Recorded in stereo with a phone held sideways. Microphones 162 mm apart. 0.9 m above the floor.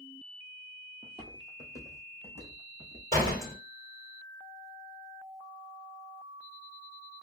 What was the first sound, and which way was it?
Footsteps, 25° right (ahead or behind).